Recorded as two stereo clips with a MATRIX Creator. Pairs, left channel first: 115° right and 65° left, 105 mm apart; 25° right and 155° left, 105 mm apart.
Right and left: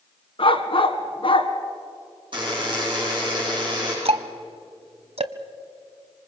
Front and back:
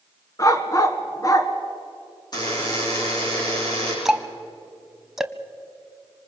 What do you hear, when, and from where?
0.4 s a dog barking: 80° right, 1.6 m
2.3 s a buzzer: 25° left, 9.5 m
4.0 s ticking: 70° left, 1.0 m